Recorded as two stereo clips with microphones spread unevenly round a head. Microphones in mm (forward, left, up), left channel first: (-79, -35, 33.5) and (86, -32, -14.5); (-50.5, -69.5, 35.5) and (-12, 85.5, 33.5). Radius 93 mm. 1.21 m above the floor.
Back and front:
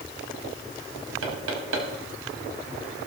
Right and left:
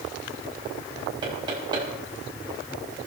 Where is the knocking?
10° left, 5.5 m.